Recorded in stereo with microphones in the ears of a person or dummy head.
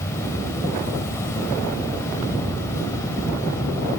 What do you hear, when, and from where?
0.0 s an insect: 15° left (ahead or behind), 3.5 m